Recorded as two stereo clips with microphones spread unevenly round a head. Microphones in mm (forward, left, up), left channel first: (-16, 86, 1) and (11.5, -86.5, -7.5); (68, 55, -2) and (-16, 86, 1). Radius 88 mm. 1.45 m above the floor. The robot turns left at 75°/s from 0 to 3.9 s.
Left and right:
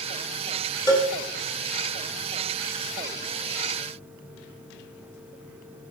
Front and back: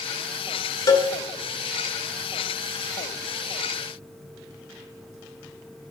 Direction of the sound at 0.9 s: 30° left.